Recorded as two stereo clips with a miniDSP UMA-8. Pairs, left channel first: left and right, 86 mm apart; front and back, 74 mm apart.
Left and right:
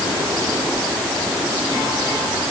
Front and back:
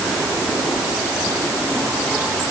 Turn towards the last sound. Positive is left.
No sound to turn to.